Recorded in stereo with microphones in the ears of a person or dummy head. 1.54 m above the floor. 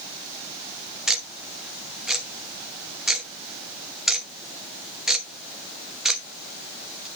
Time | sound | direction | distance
1.1 | ticking | centre (ahead or behind) | 1.1 m